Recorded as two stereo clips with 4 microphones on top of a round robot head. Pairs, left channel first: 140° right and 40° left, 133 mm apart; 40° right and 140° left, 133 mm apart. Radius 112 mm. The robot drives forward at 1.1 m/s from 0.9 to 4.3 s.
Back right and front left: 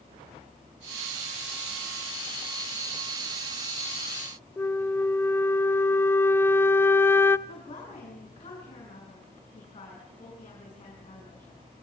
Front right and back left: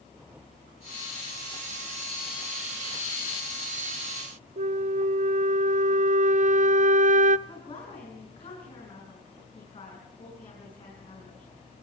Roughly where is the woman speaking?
Right.